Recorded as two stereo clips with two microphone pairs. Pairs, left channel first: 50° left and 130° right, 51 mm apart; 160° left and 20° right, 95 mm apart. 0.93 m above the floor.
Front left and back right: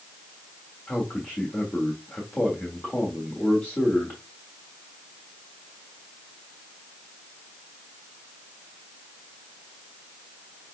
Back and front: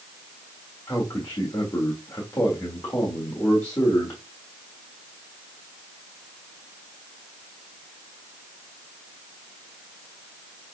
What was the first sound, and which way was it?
A man speaking, 100° left.